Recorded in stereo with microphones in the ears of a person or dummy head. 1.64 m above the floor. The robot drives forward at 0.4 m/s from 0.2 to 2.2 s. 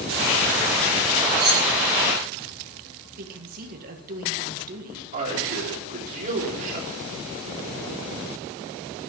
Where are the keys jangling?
25° right (ahead or behind), 4.5 m; by 1.7 s 30° right (ahead or behind), 4.5 m.